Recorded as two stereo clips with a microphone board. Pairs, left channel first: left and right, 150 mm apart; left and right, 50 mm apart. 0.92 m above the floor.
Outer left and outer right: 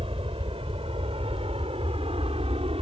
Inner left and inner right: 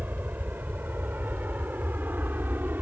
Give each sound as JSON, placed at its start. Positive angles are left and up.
{"t": 0.0, "sound": "an aircraft", "side_deg": -40}